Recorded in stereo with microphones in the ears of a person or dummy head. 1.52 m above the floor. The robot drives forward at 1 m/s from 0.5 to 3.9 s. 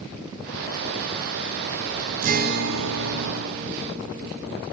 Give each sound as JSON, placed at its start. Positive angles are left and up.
{"t": 2.2, "sound": "a guitar", "side_deg": -45, "distance_m": 1.1}